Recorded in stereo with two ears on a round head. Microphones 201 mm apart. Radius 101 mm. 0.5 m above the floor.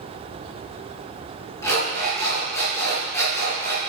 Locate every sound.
1.6 s an alarm clock: 15° left (ahead or behind), 4 m